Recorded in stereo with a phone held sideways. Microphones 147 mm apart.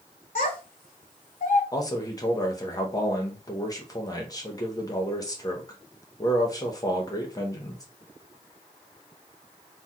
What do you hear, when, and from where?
0.3 s a child speaking: 45° left (ahead or behind), 0.9 m
1.7 s a man speaking: 25° left (ahead or behind), 0.8 m